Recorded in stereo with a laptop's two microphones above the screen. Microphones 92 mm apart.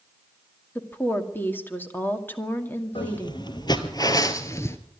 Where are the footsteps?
60° left (ahead or behind), 1.6 m; by 4.8 s 30° left (ahead or behind), 1.1 m.